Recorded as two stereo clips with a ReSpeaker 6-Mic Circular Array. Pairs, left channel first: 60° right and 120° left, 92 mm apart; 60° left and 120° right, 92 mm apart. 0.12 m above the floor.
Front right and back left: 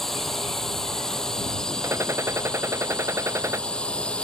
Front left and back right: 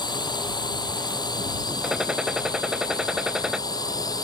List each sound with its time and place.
0.0 s a drone: 25° left; by 4.2 s 15° left
1.8 s a gunshot: 160° left